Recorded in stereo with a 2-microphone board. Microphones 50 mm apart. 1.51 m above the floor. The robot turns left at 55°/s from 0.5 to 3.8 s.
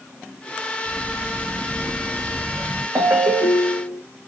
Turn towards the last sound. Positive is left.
turn(degrees=-140)